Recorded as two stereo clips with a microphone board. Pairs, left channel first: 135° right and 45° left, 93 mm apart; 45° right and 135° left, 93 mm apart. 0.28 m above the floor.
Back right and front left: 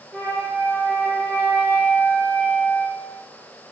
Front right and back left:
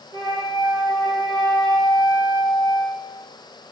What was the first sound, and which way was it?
A flute, 165° left.